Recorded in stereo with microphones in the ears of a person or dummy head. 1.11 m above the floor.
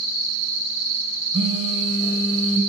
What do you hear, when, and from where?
1.3 s a phone buzzing: 30° right (ahead or behind), 4 m